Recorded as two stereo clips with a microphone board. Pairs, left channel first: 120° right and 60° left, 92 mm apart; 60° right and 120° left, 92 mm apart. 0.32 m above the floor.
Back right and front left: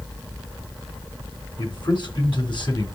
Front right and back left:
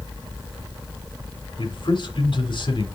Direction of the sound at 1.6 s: 90° right.